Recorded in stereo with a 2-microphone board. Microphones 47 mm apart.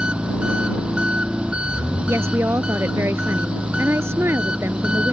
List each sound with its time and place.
0.0 s an engine running: 20° right (ahead or behind)
2.1 s a woman speaking: 70° right (ahead or behind)